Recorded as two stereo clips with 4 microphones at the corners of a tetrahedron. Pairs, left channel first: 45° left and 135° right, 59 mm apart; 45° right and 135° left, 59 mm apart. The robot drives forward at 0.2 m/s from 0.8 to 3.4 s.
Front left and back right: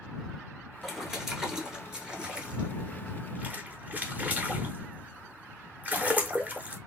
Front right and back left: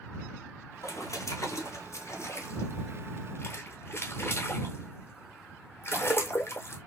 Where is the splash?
50° right, 1.1 m; by 6.8 s 80° right, 0.9 m.